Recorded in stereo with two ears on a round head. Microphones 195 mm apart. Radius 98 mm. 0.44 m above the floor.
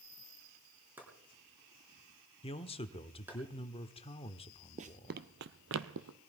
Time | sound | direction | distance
1.0 | chopping | 10° right (ahead or behind) | 4.5 m
2.4 | a man speaking | 25° left (ahead or behind) | 1.0 m
4.8 | running footsteps | 35° right (ahead or behind) | 0.7 m